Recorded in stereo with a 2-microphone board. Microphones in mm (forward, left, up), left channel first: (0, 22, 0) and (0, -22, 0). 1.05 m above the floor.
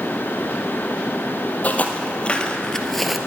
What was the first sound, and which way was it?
Footsteps, 35° left (ahead or behind).